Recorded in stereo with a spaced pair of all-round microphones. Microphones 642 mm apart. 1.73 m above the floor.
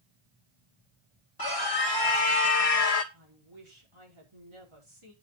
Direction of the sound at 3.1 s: 45° right (ahead or behind).